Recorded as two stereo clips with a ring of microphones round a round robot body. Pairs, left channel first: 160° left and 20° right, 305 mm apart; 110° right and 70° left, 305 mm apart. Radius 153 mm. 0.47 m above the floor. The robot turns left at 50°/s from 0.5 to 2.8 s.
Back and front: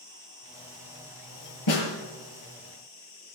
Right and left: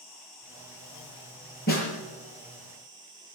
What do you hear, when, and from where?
0.0 s an insect: 100° right, 8.5 m; by 3.4 s 145° left, 8.5 m
1.7 s a snare drum: 170° right, 5.5 m; by 1.9 s 175° left, 5.5 m